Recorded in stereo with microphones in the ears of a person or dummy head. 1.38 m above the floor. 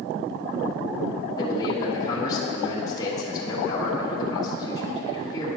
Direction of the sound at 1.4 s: 20° left (ahead or behind).